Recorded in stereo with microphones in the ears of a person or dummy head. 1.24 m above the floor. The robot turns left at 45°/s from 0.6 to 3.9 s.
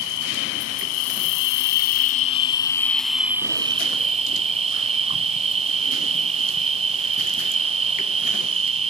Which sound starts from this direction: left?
An insect, at 0.0 s.